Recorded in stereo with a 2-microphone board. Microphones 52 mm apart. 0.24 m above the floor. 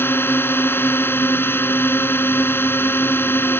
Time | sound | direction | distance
0.0 | a drone | 45° left (ahead or behind) | ?